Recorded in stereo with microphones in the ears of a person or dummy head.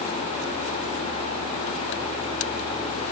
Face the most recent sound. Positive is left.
No sound to turn to.